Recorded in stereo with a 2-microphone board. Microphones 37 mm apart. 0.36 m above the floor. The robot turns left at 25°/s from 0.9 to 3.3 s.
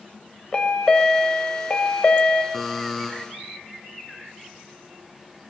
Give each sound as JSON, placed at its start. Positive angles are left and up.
{"t": 0.5, "sound": "a chime", "azimuth_deg": 140, "distance_m": 1.4}
{"t": 2.5, "sound": "a buzzer", "side_deg": 5, "distance_m": 2.5}